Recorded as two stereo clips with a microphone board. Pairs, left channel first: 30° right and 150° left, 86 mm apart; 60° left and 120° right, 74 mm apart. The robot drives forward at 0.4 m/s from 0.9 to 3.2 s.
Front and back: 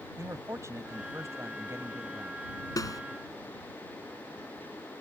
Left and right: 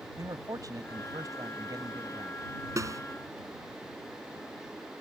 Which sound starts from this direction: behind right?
A man speaking, at 0.2 s.